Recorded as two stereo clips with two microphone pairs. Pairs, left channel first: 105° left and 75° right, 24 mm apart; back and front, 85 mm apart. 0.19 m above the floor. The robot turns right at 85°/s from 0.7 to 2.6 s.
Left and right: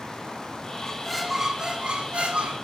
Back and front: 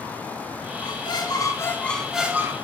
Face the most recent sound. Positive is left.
turn(degrees=-50)